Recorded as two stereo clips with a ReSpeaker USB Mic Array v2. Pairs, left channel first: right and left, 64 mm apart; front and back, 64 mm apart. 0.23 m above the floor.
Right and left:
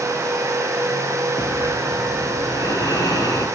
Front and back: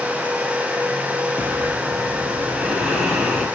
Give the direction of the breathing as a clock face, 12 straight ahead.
3 o'clock.